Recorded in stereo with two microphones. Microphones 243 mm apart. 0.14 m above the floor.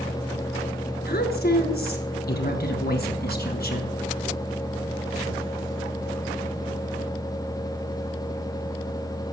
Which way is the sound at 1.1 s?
40° left (ahead or behind).